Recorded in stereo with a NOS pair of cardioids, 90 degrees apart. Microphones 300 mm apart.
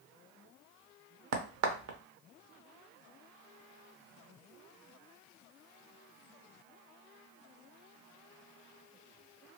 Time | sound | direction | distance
1.3 | a crack | 45° right | 0.7 m